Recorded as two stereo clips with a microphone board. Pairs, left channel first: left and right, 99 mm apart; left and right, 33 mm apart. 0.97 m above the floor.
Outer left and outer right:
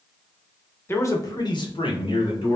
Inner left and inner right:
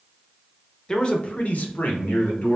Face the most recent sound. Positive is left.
turn(degrees=60)  # may be behind; listen again after turning